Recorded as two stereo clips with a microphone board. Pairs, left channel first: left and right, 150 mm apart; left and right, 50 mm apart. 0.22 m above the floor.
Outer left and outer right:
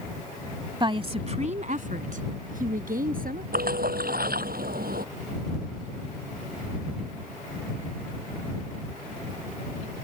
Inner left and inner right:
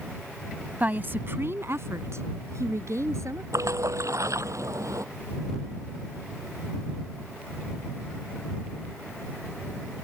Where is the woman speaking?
30° right (ahead or behind); by 3.4 s 75° right (ahead or behind).